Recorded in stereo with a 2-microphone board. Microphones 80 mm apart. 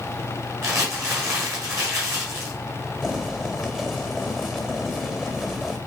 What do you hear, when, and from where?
0.6 s crumpling: 35° right (ahead or behind), 4.5 m
3.0 s boiling: 5° right (ahead or behind), 1.7 m